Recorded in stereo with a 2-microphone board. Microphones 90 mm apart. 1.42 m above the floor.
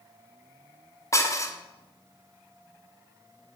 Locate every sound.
1.1 s dishes clattering: 35° left (ahead or behind), 1.0 m